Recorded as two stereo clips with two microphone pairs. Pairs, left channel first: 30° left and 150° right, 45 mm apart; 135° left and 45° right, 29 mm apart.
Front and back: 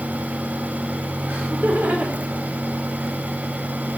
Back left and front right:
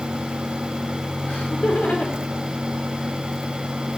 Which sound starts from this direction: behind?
Laughter, at 1.3 s.